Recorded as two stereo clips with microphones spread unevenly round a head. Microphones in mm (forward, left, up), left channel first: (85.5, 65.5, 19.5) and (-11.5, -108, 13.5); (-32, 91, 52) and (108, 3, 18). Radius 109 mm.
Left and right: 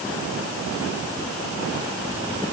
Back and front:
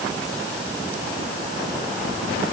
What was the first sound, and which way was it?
Only background noise.